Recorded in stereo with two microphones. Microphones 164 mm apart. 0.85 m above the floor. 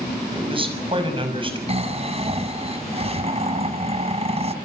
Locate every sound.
0.3 s a man speaking: 35° right (ahead or behind), 6 m
1.7 s snoring: 40° right (ahead or behind), 2.5 m